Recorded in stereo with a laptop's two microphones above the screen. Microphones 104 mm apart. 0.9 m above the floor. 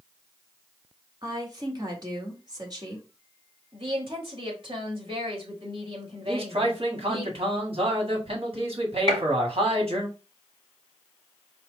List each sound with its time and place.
1.2 s a woman speaking: 35° right (ahead or behind), 1.6 m
3.7 s a woman speaking: 50° right (ahead or behind), 2 m
6.2 s a man speaking: 60° right (ahead or behind), 1.9 m
9.1 s a gunshot: 50° right (ahead or behind), 2.5 m